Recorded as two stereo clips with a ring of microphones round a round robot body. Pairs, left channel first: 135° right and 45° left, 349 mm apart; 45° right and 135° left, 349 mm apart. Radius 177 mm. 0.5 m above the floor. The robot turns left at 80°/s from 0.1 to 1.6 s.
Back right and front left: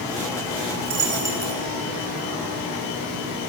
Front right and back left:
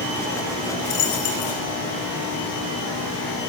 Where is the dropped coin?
5° right, 5.5 m; by 1.5 s 60° right, 5.5 m.